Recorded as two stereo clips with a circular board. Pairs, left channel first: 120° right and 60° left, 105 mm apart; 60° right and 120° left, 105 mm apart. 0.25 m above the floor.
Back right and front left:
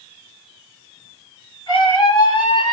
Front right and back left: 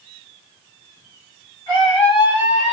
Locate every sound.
1.7 s a scream: 90° right, 2.5 m